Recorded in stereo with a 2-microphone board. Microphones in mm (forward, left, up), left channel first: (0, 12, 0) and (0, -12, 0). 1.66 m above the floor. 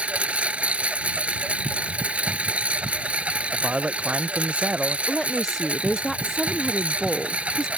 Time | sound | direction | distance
0.0 | a lawn mower | 70° right (ahead or behind) | ?
3.5 | a man speaking | 60° right (ahead or behind) | ?
5.1 | a woman speaking | 20° left (ahead or behind) | ?